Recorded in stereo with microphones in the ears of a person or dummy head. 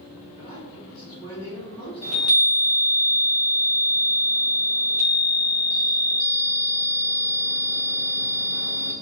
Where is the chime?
30° right (ahead or behind), 1.9 m.